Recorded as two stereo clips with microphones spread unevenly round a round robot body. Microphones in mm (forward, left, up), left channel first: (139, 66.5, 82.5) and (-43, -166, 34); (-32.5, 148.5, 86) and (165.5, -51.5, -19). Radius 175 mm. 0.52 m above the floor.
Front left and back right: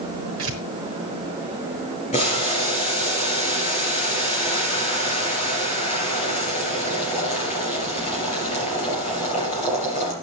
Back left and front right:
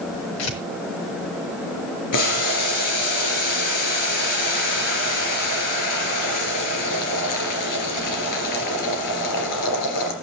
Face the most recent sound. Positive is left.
turn(degrees=125)